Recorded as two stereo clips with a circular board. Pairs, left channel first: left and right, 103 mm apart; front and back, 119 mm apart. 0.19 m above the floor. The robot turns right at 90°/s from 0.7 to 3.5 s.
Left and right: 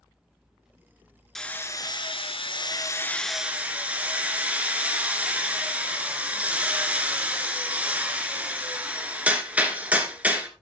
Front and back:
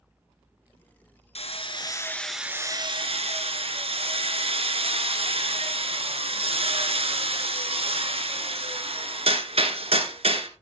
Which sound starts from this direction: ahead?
Hammering, at 1.4 s.